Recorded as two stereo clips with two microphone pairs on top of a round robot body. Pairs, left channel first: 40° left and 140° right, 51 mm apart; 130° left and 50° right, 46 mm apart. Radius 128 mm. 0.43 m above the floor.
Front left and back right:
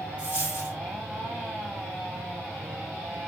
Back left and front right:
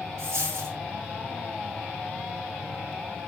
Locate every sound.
0.2 s a dropped coin: 65° right, 0.6 m